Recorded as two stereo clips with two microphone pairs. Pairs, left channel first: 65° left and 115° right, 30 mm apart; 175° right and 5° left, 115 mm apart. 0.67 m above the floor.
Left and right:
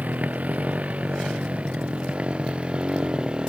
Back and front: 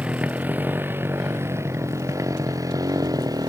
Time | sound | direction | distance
0.0 | a motorcycle | 75° right | ?